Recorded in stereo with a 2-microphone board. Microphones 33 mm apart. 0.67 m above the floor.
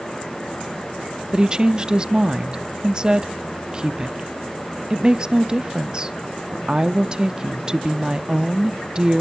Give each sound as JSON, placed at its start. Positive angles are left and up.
{"t": 1.3, "sound": "a woman speaking", "side_deg": -25, "distance_m": 0.7}